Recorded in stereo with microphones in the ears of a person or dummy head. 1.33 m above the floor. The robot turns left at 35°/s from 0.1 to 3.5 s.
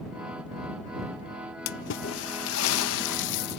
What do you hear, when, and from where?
1.7 s a splash: 125° left; by 3.6 s 60° left